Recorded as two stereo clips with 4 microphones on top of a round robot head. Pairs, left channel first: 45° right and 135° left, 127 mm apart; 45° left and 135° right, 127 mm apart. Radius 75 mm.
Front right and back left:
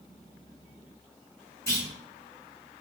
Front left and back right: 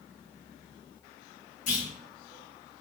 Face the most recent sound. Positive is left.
turn(degrees=25)